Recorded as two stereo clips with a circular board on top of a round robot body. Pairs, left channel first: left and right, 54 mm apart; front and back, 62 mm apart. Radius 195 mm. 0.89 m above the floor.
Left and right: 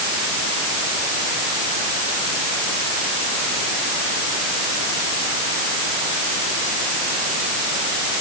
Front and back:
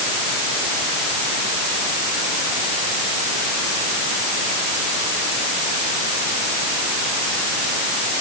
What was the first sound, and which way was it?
Only background noise.